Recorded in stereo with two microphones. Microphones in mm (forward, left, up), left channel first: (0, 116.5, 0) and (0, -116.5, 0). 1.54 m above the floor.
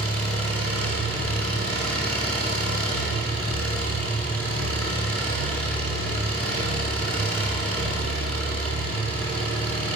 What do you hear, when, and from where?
0.0 s an engine running: 80° right, 9 m